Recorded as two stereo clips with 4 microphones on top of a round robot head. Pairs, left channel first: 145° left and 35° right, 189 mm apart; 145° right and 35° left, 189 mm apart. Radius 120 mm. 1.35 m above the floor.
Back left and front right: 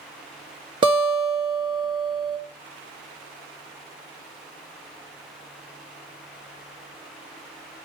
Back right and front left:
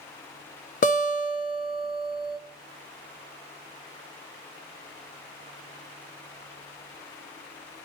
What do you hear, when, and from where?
0.8 s a guitar: 100° right, 1.4 m